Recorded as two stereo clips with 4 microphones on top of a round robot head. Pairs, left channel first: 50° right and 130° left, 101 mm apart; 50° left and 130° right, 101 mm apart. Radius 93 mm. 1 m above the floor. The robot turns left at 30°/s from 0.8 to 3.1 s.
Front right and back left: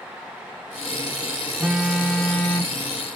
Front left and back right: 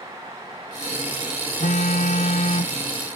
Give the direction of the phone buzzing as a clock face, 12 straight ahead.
10 o'clock.